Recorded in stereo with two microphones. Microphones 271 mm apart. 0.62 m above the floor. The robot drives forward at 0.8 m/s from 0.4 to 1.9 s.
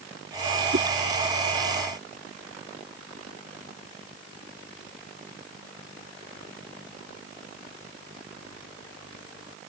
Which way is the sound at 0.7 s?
45° right (ahead or behind).